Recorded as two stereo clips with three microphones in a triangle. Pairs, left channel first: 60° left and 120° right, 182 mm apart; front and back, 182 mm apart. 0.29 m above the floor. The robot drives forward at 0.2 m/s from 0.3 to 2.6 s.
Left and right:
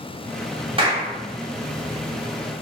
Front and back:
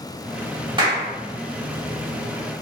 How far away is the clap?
About 0.8 m.